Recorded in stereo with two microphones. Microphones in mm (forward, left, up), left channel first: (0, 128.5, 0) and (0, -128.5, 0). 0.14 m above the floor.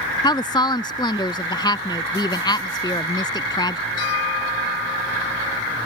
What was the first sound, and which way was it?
A woman speaking, 15° left (ahead or behind).